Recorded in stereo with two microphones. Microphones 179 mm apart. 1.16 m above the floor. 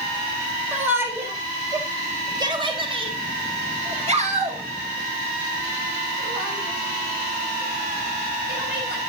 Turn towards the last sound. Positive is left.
turn(degrees=-65)  # may be behind; listen again after turning